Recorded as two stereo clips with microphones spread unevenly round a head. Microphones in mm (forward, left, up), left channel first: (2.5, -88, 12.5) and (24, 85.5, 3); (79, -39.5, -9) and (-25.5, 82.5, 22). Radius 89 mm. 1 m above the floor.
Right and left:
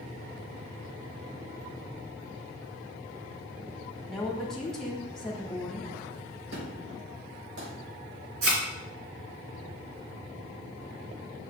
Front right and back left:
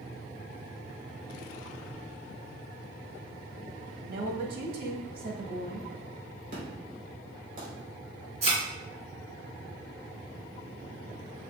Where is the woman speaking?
175° left, 1.6 m.